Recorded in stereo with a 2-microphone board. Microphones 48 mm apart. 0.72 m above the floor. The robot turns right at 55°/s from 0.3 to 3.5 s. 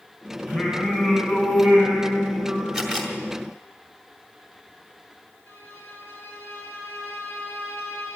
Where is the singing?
25° right, 6.5 m; by 2.6 s 95° left, 6.5 m.